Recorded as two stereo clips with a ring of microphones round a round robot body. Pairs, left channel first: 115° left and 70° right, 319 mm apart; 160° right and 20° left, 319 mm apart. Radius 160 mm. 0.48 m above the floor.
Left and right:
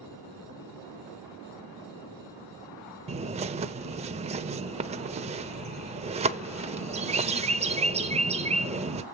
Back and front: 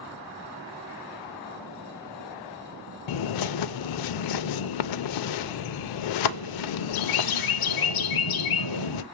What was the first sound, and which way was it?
A bird, 140° right.